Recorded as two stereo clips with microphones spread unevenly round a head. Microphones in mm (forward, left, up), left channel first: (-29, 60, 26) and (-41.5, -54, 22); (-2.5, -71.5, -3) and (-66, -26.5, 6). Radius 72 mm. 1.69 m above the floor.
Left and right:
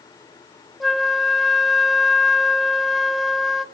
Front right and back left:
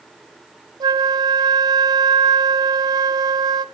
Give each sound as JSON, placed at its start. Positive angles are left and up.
{"t": 0.8, "sound": "a flute", "azimuth_deg": 175, "distance_m": 0.5}